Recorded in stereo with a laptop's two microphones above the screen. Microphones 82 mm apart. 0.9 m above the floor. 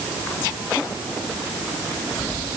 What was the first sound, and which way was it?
Only background noise.